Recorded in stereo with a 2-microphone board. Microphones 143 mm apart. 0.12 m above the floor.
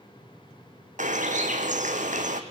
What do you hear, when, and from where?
1.0 s a bird: 60° right (ahead or behind), 1.4 m